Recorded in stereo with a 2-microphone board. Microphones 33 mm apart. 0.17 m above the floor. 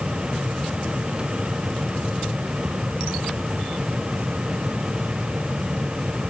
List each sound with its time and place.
Only background noise.